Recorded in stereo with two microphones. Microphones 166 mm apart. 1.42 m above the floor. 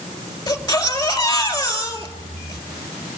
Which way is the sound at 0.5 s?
20° left (ahead or behind).